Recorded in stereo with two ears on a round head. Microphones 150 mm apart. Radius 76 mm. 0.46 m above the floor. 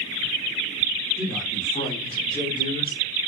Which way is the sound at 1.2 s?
Centre (ahead or behind).